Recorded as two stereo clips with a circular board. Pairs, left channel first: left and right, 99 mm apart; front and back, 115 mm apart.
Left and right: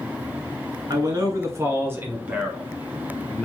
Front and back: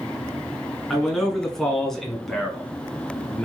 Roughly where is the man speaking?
Right.